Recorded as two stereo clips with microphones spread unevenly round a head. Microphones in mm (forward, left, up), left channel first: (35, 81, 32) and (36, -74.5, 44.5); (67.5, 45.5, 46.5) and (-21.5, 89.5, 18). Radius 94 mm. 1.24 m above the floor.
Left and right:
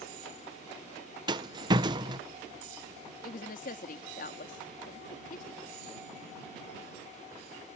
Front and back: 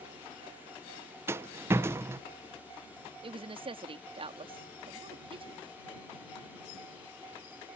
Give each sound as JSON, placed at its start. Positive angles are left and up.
{"t": 1.3, "sound": "a rattle", "azimuth_deg": -155}
{"t": 3.2, "sound": "a woman speaking", "azimuth_deg": 130}